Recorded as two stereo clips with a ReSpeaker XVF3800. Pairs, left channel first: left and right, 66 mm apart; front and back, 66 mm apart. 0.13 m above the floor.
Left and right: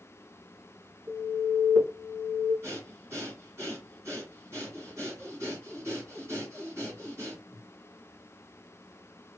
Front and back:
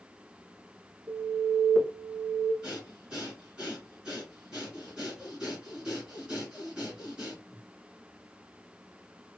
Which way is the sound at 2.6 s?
105° right.